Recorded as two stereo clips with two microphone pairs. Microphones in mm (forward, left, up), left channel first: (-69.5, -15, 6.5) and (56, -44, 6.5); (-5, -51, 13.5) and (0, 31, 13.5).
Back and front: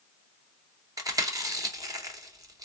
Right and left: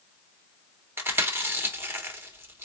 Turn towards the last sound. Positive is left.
turn(degrees=35)